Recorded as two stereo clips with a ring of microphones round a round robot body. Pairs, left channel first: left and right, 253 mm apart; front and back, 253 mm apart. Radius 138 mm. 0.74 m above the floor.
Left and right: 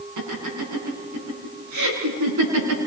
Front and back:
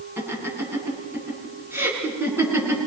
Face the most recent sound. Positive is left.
turn(degrees=-100)